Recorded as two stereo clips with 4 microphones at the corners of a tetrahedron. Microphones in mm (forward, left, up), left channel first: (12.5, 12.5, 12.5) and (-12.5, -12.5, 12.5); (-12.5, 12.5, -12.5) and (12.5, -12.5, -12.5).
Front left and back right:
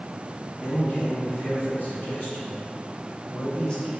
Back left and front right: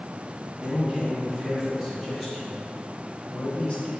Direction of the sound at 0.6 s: 10° left.